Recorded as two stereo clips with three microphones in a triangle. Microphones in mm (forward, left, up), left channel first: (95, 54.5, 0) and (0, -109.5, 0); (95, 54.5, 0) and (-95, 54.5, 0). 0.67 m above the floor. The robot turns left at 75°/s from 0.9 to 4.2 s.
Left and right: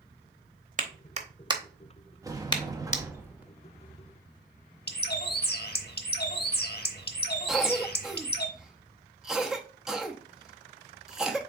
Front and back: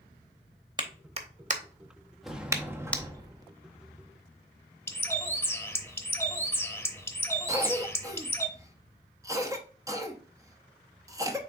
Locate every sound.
0.8 s a clap: 125° right, 0.7 m; by 3.0 s 75° left, 0.7 m
2.2 s a sliding door: 90° right, 0.7 m; by 3.5 s 175° left, 0.7 m
4.9 s a bird: 75° left, 0.7 m
7.5 s a cough: 160° left, 0.8 m